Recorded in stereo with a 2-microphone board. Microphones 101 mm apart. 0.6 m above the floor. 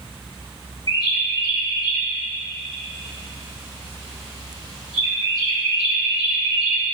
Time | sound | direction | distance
0.9 | a bird | 40° left (ahead or behind) | 2.5 m